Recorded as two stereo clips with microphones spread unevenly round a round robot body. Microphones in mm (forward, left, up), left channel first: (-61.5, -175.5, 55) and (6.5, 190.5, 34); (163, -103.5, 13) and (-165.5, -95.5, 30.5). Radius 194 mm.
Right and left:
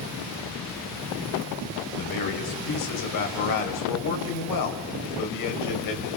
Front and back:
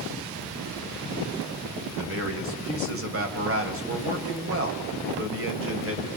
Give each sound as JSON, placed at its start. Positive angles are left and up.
{"t": 2.0, "sound": "a man speaking", "azimuth_deg": -135, "distance_m": 3.0}